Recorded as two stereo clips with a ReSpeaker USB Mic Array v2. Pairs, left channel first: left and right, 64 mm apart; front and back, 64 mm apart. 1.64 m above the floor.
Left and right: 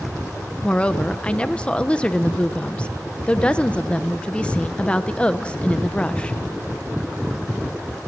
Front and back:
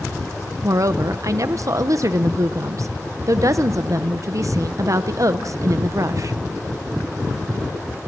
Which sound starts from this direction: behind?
A woman speaking, at 0.6 s.